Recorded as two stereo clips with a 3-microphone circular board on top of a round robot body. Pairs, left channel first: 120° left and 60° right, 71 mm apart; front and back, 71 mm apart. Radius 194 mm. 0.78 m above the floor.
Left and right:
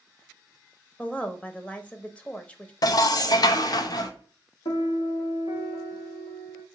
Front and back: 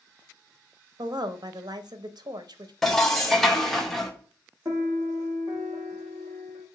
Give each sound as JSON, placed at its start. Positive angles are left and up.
{"t": 1.0, "sound": "a woman speaking", "azimuth_deg": -170, "distance_m": 0.7}
{"t": 2.8, "sound": "dishes clattering", "azimuth_deg": 85, "distance_m": 0.5}
{"t": 4.7, "sound": "a piano", "azimuth_deg": 115, "distance_m": 0.7}